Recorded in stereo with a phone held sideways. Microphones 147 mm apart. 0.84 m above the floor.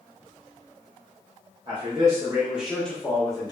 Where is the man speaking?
35° right (ahead or behind), 0.9 m; by 3.5 s 30° left (ahead or behind), 0.8 m.